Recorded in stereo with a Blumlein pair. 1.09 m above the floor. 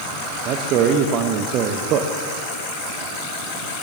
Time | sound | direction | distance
0.5 | a man speaking | 35° right | 1.0 m